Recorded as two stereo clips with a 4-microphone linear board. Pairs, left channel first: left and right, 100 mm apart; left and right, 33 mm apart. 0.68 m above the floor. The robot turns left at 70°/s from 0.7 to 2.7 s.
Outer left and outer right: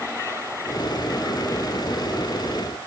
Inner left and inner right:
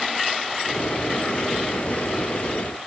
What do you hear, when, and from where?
Only background noise.